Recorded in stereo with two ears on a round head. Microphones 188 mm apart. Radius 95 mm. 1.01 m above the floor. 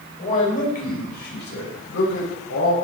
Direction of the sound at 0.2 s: 35° left (ahead or behind).